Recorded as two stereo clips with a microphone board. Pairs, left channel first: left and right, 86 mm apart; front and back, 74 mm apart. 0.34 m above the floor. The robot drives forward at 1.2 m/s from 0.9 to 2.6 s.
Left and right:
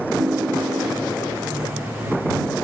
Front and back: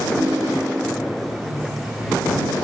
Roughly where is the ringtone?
Behind right.